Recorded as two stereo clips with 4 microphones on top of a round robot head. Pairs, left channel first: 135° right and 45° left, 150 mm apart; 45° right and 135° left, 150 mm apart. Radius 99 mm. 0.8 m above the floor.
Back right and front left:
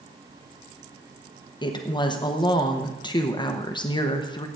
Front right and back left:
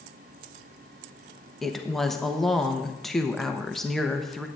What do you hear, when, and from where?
1.6 s a woman speaking: 130° right, 1.0 m